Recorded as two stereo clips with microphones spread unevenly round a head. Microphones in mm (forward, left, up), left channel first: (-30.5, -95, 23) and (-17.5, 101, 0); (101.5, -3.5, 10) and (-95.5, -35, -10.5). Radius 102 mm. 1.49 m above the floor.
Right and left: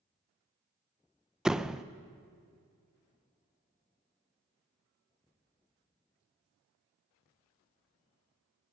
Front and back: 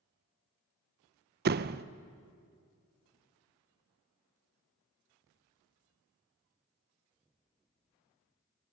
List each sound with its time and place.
1.4 s a door slam: straight behind, 0.6 m